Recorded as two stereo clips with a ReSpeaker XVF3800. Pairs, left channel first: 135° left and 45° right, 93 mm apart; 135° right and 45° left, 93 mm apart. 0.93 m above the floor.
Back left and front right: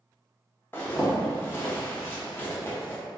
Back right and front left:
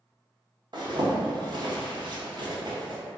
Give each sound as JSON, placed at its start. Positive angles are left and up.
{"t": 0.7, "sound": "a zipper", "azimuth_deg": 75, "distance_m": 0.6}